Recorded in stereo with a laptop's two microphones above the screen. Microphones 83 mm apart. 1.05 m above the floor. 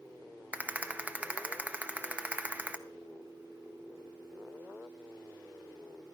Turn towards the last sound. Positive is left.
turn(degrees=-15)  # may be behind; listen again after turning